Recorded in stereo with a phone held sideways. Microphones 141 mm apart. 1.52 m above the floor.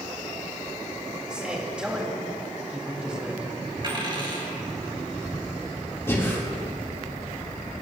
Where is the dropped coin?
35° right (ahead or behind), 3 m.